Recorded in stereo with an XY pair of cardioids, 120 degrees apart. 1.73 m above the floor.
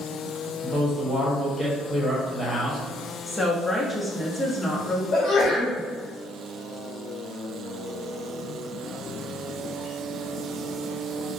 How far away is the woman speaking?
About 0.9 m.